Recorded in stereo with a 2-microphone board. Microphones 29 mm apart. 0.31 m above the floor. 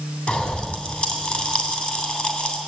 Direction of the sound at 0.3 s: 45° left (ahead or behind).